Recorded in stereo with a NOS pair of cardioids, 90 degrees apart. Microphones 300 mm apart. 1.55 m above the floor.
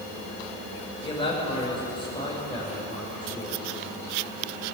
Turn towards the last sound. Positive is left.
turn(degrees=15)